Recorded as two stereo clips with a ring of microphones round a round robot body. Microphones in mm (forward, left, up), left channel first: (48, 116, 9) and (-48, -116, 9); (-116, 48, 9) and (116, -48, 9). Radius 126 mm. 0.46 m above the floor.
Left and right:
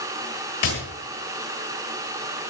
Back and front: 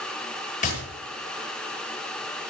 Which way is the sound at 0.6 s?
100° left.